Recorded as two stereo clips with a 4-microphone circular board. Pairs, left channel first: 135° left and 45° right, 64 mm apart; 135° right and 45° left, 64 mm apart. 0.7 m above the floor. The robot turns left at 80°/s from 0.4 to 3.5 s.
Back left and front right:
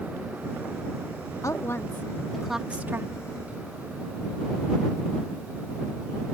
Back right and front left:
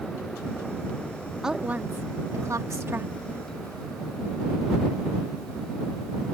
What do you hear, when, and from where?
1.4 s a woman speaking: 125° left; by 3.1 s 10° right